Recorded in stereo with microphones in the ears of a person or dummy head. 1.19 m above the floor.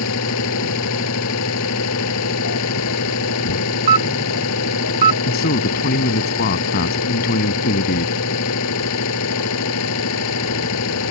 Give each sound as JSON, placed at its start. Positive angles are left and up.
{"t": 0.0, "sound": "an engine running", "side_deg": 80}
{"t": 3.9, "sound": "a camera shutter", "side_deg": -30}
{"t": 5.2, "sound": "a man speaking", "side_deg": 50}